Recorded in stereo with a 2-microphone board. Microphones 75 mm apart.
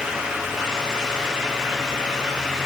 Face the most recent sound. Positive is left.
No sound to turn to.